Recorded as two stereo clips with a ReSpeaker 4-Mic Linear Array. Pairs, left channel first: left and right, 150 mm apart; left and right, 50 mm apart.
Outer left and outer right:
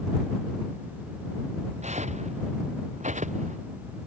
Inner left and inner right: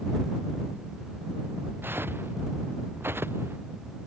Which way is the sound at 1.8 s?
50° right (ahead or behind).